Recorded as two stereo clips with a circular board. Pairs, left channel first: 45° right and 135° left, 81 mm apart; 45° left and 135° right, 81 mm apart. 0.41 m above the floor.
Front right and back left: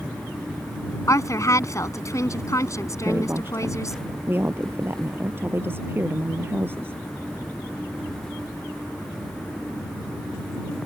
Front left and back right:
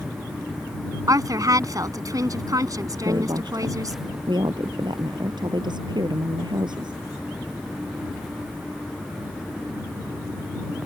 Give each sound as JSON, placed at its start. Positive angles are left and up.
{"t": 1.1, "sound": "a woman speaking", "azimuth_deg": -95}
{"t": 3.0, "sound": "a woman speaking", "azimuth_deg": -160}